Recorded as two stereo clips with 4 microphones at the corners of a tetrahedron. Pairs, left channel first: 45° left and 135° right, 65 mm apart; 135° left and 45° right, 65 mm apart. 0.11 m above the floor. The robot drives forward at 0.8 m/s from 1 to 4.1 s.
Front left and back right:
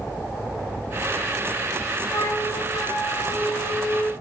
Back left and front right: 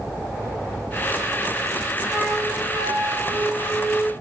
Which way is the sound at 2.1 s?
20° left.